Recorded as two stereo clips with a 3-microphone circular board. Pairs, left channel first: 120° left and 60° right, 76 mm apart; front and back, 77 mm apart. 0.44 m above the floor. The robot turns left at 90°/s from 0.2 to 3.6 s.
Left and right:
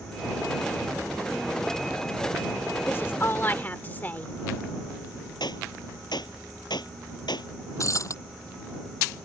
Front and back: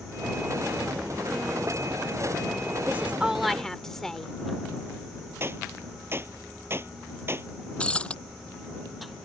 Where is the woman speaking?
145° left; by 4.3 s 80° left.